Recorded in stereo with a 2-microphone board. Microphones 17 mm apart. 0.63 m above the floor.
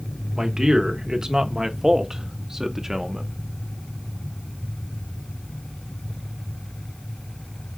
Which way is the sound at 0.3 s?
40° right (ahead or behind).